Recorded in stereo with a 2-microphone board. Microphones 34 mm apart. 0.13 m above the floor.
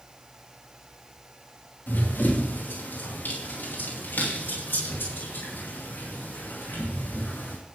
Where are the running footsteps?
90° left, 5.5 m; by 7.6 s 85° left, 9 m.